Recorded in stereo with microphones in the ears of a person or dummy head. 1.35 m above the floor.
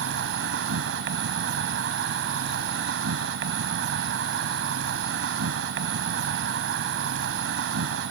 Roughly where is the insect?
Right.